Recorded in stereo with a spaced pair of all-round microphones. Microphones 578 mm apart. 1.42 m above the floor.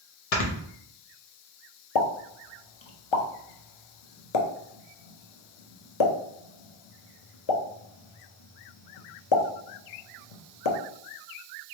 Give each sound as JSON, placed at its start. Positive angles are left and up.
{"t": 0.3, "sound": "snoring", "side_deg": 80, "distance_m": 0.9}
{"t": 1.9, "sound": "a pop", "side_deg": 55, "distance_m": 0.6}